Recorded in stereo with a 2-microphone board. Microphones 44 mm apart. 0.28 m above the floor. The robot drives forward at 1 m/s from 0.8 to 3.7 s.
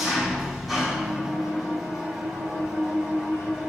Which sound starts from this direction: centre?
An engine running, at 0.0 s.